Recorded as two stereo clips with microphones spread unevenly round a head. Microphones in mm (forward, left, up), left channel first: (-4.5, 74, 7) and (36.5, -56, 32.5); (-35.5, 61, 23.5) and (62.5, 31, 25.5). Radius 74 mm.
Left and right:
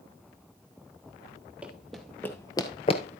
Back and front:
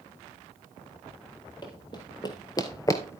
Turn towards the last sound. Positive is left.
turn(degrees=120)